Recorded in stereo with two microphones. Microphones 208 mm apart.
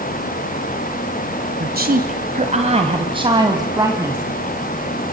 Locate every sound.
1.6 s a woman speaking: 50° right (ahead or behind), 1.8 m; by 4.2 s 10° right (ahead or behind), 2.5 m